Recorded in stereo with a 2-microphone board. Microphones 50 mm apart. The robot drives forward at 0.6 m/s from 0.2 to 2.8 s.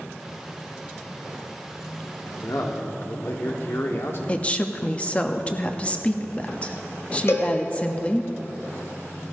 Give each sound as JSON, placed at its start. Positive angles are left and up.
{"t": 2.2, "sound": "a man speaking", "side_deg": 70, "distance_m": 1.3}
{"t": 4.3, "sound": "a woman speaking", "side_deg": 25, "distance_m": 0.8}
{"t": 7.3, "sound": "a cowbell", "side_deg": 65, "distance_m": 1.6}